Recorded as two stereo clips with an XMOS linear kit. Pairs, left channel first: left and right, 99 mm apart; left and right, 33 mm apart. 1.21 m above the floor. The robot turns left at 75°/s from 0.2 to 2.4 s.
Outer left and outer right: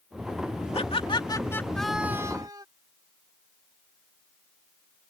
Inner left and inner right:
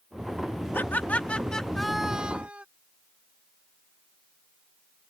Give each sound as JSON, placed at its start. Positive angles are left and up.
{"t": 0.7, "sound": "laughter", "azimuth_deg": 85}